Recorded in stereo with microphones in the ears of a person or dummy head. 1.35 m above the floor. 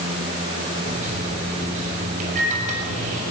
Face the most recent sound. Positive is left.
turn(degrees=-40)  # may be behind; listen again after turning